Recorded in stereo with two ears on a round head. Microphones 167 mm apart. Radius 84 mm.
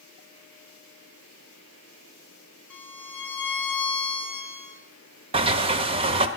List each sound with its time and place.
2.7 s a violin: 10° left (ahead or behind), 4 m
5.3 s a sliding door: 35° right (ahead or behind), 0.9 m